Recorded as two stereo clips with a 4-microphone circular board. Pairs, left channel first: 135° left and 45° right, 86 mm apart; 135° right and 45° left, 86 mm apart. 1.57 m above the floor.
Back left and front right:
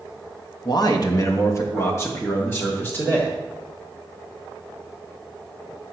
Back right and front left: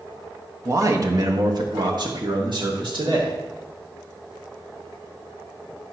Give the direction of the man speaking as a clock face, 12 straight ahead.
9 o'clock.